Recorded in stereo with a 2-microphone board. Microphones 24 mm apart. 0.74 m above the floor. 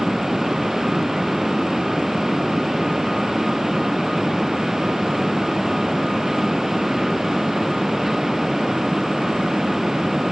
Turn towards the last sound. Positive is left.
No sound to turn to.